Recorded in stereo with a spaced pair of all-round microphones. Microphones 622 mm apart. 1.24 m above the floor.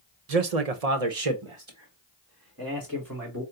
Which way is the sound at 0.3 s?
75° right (ahead or behind).